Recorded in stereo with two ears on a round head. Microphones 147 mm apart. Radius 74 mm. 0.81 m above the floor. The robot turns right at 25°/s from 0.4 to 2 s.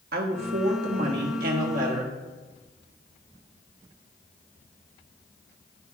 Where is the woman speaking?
95° right, 1.1 m; by 2.1 s 55° right, 1.1 m.